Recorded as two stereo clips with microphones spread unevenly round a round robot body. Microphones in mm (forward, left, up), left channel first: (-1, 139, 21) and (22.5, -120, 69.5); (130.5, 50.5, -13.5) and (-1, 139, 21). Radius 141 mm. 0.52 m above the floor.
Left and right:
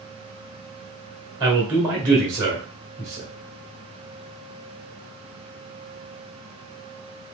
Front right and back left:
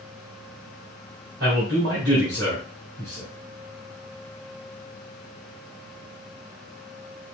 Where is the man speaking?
165° right, 1.8 m.